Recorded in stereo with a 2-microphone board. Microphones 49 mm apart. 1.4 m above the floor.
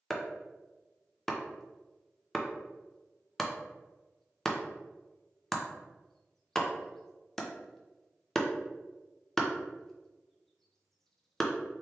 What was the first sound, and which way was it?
Chopping, 5° left (ahead or behind).